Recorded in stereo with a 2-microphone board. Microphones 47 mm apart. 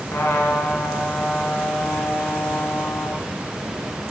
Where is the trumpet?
60° left (ahead or behind), 1.8 m.